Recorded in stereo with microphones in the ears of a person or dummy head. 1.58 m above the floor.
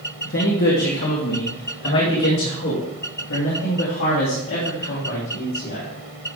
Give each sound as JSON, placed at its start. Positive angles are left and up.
{"t": 0.2, "sound": "a man speaking", "side_deg": 55, "distance_m": 1.4}